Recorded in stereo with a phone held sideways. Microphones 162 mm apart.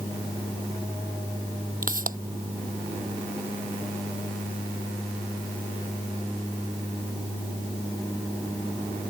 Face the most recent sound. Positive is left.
turn(degrees=-60)  # may be behind; listen again after turning